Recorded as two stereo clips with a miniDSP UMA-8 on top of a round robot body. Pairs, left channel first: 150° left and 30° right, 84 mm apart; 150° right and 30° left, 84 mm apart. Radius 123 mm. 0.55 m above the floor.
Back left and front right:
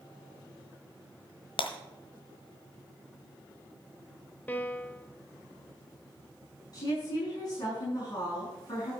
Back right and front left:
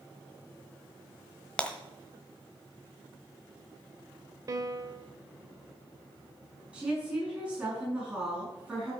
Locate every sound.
1.6 s breaking glass: 130° left, 1.3 m
4.5 s a piano: 80° left, 1.0 m
6.7 s a woman speaking: 110° left, 6.5 m